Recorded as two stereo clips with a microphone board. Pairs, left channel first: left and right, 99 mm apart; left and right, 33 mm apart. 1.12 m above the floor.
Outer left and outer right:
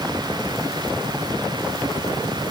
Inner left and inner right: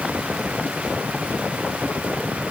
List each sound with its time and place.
Only background noise.